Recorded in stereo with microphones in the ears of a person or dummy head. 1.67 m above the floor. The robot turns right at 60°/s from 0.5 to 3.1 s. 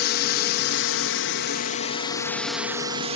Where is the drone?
55° left; by 3.2 s 150° right.